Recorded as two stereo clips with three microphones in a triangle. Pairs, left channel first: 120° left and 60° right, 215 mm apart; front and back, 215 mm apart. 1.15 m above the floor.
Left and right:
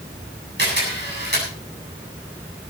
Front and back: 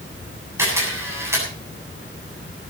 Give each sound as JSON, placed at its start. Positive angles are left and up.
{"t": 0.6, "sound": "a camera shutter", "azimuth_deg": -100, "distance_m": 8.5}